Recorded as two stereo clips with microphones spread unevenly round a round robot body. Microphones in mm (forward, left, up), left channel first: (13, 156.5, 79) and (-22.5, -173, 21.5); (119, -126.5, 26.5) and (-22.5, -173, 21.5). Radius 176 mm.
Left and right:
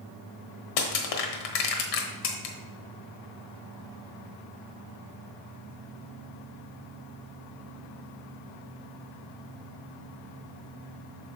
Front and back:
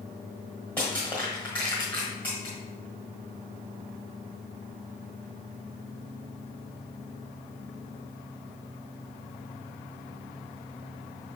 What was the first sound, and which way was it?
Crushing, 100° left.